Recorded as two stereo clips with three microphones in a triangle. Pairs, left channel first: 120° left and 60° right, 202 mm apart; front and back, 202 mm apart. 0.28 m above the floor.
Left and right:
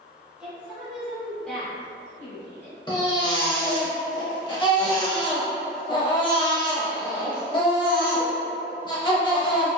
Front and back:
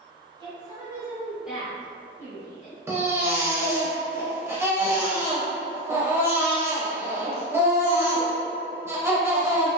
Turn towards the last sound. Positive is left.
turn(degrees=125)